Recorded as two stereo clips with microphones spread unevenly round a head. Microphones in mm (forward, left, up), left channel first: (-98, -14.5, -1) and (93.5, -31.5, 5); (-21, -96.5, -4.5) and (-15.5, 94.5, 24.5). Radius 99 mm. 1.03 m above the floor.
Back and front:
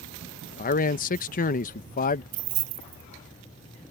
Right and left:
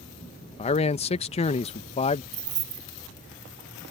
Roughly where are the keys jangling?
Ahead left.